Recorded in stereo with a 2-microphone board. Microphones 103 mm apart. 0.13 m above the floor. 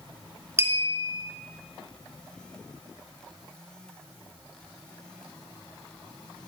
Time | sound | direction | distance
0.6 | a clink | 25° right (ahead or behind) | 1.2 m